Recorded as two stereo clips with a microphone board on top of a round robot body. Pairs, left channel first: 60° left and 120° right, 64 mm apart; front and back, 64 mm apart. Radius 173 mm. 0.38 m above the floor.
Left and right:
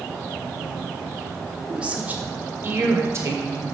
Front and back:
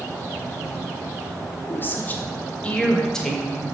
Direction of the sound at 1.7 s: 45° right.